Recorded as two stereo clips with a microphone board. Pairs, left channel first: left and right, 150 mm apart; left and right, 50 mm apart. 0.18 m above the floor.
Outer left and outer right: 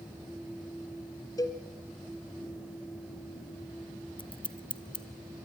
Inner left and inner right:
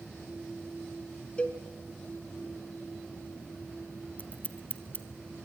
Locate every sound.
1.4 s a cowbell: 25° left (ahead or behind), 1.7 m
4.2 s scissors: 35° left (ahead or behind), 1.5 m